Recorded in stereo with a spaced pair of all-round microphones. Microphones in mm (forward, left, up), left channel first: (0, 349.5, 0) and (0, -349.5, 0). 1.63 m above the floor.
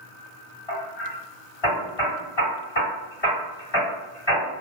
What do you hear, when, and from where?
0.7 s hammering: 40° left (ahead or behind), 1.8 m